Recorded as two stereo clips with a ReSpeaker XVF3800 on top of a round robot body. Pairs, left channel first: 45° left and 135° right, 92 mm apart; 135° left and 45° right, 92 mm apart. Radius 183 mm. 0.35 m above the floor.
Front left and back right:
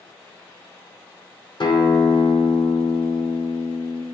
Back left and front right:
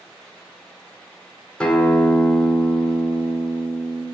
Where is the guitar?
55° left, 1.2 m.